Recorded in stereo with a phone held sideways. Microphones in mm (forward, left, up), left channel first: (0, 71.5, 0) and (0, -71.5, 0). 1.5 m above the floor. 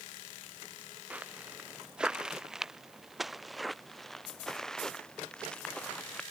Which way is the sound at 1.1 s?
10° right (ahead or behind).